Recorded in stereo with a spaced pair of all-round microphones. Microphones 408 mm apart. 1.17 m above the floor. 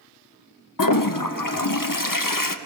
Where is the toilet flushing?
55° left (ahead or behind), 0.7 m.